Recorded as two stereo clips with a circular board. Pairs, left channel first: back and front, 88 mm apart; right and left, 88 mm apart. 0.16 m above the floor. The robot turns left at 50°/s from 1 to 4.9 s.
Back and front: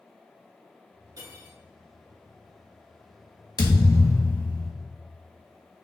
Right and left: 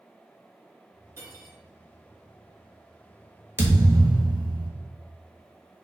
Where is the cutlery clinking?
35° left, 1.6 m; by 1.6 s 15° left, 1.6 m.